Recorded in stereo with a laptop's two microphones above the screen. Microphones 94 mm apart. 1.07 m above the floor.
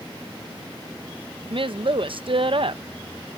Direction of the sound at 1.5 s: 60° right (ahead or behind).